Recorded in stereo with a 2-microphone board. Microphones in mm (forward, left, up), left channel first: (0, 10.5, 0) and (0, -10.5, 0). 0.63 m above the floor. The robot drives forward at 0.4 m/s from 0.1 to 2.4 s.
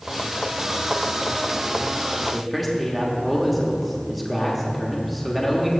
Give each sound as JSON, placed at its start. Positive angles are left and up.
{"t": 2.3, "sound": "a man speaking", "side_deg": 0, "distance_m": 1.1}